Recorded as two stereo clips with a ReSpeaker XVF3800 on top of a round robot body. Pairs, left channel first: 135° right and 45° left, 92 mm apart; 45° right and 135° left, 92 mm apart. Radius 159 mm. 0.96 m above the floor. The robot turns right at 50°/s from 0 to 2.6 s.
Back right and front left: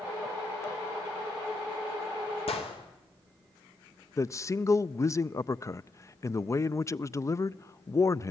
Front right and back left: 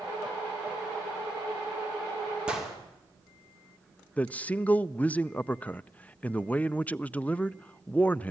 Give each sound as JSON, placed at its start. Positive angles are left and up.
{"t": 2.5, "sound": "a gunshot", "azimuth_deg": -145, "distance_m": 3.0}
{"t": 4.2, "sound": "a man speaking", "azimuth_deg": -110, "distance_m": 0.6}